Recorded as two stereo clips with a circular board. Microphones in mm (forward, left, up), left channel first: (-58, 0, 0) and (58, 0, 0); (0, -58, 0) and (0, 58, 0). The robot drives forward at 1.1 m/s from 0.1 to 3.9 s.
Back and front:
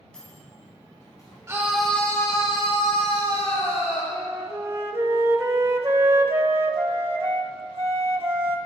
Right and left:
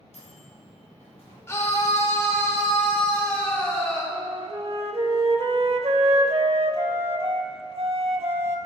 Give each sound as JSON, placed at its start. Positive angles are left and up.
{"t": 0.1, "sound": "a microwave", "azimuth_deg": -100, "distance_m": 3.0}
{"t": 1.5, "sound": "a scream", "azimuth_deg": -45, "distance_m": 0.9}
{"t": 4.1, "sound": "a flute", "azimuth_deg": 65, "distance_m": 0.7}